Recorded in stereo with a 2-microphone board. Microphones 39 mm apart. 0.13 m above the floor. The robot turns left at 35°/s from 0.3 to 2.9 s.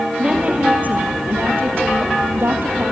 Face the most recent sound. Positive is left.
turn(degrees=-120)